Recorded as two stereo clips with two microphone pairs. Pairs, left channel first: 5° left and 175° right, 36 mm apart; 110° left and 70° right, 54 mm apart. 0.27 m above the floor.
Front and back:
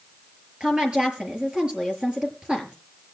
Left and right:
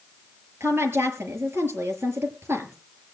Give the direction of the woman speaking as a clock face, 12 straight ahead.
4 o'clock.